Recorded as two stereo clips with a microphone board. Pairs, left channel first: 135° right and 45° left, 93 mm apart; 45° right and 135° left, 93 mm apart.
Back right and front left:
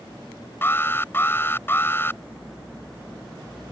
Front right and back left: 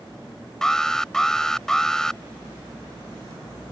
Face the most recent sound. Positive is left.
turn(degrees=-120)